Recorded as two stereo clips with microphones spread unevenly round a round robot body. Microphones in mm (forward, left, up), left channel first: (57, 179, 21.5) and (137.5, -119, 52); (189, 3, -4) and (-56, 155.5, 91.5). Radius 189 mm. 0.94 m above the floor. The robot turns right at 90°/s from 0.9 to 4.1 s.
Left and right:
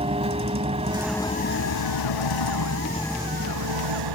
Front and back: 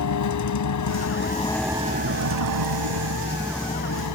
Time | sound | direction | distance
0.0 | a vehicle | 5° right | ?